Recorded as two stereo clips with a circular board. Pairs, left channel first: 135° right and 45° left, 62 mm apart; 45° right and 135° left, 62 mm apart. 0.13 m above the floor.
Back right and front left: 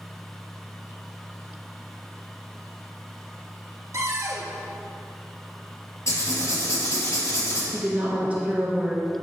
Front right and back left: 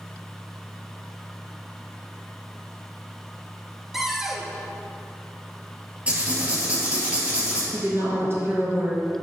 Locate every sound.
3.9 s a cupboard door: 50° left, 0.8 m
6.1 s writing: 160° right, 2 m
7.7 s a woman speaking: 105° left, 2 m